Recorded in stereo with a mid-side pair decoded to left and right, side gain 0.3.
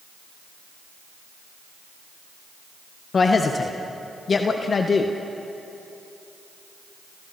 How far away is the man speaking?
About 1.4 m.